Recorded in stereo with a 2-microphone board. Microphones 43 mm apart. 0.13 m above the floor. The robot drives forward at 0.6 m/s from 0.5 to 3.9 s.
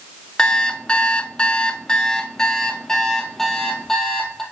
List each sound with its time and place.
0.4 s an alarm clock: 20° left (ahead or behind), 0.7 m; by 4.4 s 10° left (ahead or behind), 1.7 m